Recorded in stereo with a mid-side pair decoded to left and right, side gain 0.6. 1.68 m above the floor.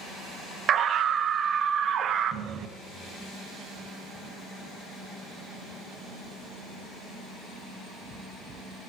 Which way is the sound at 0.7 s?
45° right.